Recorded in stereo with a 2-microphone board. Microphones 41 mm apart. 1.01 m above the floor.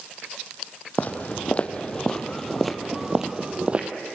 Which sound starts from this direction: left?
Footsteps, at 1.0 s.